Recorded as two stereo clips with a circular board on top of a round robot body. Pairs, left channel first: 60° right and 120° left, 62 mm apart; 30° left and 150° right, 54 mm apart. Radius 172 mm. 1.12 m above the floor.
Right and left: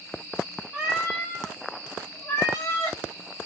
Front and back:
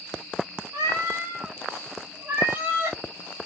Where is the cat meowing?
160° right, 0.7 m; by 3.0 s 95° right, 2 m.